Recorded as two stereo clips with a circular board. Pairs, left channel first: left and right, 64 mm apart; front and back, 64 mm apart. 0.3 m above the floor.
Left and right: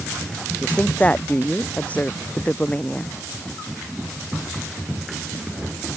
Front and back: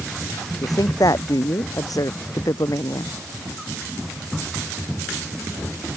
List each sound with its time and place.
0.6 s a woman speaking: 20° left